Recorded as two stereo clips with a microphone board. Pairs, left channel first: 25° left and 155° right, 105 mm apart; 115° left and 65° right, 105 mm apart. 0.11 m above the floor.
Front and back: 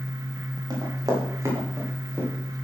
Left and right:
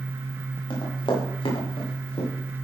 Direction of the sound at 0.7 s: 155° left.